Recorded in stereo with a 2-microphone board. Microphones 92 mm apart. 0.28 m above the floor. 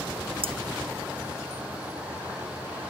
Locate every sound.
0.4 s cutlery clinking: 85° right